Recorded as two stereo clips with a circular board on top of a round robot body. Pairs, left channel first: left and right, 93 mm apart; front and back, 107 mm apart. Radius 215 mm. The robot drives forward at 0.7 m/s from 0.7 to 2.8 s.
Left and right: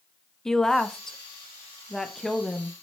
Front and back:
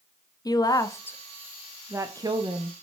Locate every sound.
0.5 s a woman speaking: 10° left, 1.0 m; by 2.7 s 175° left, 1.3 m